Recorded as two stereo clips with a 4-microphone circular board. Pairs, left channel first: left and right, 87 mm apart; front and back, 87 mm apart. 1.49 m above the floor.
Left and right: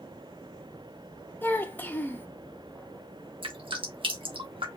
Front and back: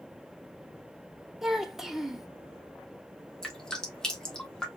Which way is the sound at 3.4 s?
85° right.